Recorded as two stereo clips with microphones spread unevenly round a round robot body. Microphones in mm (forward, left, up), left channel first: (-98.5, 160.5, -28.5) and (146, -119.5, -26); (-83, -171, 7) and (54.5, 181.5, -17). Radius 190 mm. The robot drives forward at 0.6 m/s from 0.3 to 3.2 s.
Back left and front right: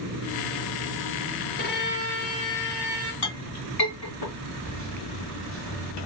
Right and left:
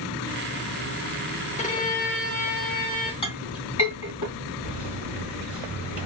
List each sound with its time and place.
1.6 s a violin: 175° right, 0.6 m; by 3.1 s straight behind, 1.4 m
3.2 s a clink: 170° left, 2.5 m
4.6 s a microwave: 155° left, 1.9 m